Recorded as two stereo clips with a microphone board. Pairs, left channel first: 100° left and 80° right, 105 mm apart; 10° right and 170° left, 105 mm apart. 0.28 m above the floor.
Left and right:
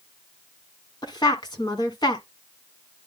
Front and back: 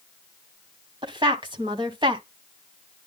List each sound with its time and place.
1.0 s a woman speaking: 140° left, 1.9 m